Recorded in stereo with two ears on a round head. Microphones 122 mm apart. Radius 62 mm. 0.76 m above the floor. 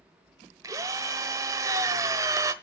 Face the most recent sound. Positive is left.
turn(degrees=-25)  # may be behind; listen again after turning